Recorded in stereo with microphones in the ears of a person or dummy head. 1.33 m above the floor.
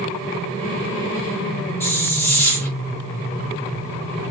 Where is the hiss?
20° left (ahead or behind), 1.1 m.